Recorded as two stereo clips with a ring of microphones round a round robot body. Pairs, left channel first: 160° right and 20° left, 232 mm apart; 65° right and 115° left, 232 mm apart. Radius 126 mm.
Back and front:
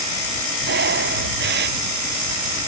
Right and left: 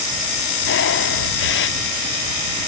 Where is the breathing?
25° right.